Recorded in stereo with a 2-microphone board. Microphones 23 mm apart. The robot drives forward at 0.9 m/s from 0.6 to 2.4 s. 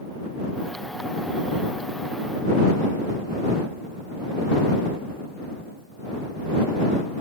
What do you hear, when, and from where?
Only background noise.